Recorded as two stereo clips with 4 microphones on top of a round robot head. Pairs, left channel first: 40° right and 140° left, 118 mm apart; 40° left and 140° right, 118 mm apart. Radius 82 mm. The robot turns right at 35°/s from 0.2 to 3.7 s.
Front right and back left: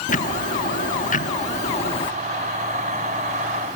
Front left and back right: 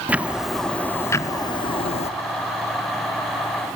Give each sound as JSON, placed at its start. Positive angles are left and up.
{"t": 0.1, "sound": "ticking", "azimuth_deg": -60, "distance_m": 0.7}